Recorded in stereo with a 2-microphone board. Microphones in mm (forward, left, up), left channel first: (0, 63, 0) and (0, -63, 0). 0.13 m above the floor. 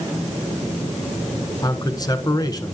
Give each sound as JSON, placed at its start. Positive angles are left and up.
{"t": 1.6, "sound": "a man speaking", "side_deg": 30, "distance_m": 1.4}